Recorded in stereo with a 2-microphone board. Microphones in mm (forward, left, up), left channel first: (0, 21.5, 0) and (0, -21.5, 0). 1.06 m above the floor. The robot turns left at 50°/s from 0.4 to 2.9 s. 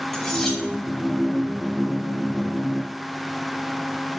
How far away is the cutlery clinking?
About 1.3 m.